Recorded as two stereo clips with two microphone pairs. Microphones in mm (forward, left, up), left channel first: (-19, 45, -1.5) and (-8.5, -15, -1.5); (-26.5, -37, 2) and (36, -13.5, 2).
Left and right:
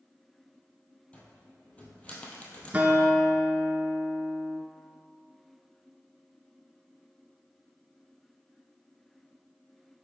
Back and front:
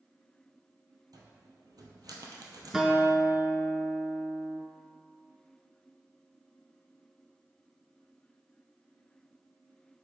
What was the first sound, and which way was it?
A cupboard door, 35° left.